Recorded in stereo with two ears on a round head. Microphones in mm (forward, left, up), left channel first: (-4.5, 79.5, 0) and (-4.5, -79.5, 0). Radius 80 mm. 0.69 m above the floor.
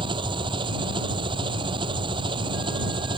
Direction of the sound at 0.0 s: 30° right (ahead or behind).